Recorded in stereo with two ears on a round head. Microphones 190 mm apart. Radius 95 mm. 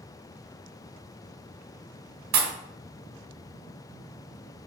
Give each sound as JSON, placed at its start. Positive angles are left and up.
{"t": 2.3, "sound": "a pop", "side_deg": -85, "distance_m": 2.0}